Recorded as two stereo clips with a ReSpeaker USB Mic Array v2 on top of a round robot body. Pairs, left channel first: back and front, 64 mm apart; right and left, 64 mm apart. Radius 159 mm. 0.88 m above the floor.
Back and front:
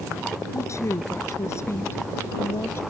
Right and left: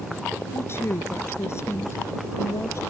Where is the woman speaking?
140° right; by 2.8 s 130° right.